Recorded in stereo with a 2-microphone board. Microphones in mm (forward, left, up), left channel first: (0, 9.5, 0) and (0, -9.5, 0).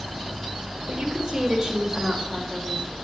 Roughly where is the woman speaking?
Right.